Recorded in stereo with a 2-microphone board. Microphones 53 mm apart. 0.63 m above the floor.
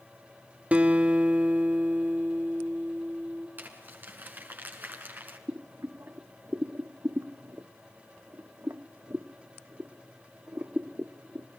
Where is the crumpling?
35° right (ahead or behind), 5.5 m.